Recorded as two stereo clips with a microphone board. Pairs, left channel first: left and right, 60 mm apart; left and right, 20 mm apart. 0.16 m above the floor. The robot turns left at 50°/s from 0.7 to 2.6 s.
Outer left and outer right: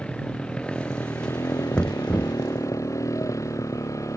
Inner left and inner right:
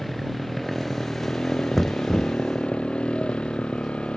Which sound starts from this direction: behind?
A motorcycle, at 0.0 s.